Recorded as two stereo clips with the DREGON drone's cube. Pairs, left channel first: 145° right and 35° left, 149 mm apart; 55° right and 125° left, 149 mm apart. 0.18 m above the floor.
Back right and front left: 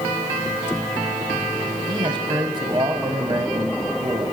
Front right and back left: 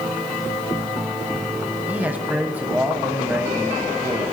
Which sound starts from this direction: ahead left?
A man speaking, at 1.9 s.